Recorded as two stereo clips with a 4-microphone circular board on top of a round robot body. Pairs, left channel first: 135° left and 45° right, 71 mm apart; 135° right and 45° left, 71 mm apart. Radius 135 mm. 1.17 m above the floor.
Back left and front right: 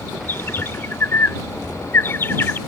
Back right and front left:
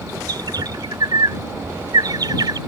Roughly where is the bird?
Left.